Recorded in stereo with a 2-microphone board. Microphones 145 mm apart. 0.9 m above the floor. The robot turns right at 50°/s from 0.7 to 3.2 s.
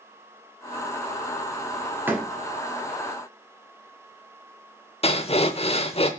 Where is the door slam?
15° right (ahead or behind), 1.5 m; by 2.3 s centre (ahead or behind), 1.5 m.